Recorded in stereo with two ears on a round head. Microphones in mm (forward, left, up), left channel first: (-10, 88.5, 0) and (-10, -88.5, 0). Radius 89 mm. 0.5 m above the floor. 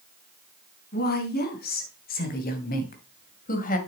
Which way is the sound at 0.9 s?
55° left (ahead or behind).